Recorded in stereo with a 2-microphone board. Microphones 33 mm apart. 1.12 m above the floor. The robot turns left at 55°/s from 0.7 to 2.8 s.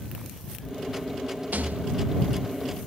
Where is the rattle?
75° right (ahead or behind).